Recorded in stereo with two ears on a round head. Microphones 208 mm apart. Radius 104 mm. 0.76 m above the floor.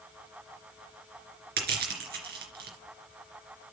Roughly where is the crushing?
Right.